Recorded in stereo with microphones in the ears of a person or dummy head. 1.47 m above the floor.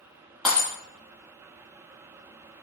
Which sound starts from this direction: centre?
Breaking glass, at 0.5 s.